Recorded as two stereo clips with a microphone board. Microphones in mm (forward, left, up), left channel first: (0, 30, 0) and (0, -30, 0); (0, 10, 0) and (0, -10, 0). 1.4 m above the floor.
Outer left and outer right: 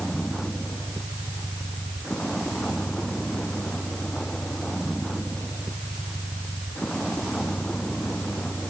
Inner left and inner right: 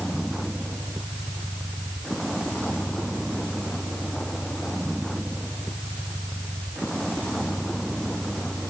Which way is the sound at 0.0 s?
10° left (ahead or behind).